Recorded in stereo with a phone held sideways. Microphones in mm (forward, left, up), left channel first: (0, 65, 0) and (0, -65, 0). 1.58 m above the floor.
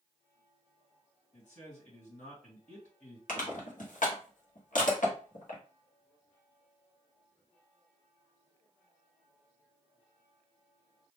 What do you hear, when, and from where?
1.3 s a man speaking: 70° left (ahead or behind), 1.8 m
3.3 s crushing: 80° left, 1.1 m